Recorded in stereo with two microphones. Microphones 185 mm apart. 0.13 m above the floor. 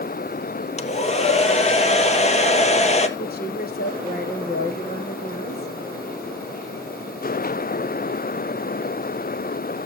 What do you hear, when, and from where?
0.8 s a hair dryer: 40° left (ahead or behind), 1.0 m
3.2 s a woman speaking: 55° left (ahead or behind), 3 m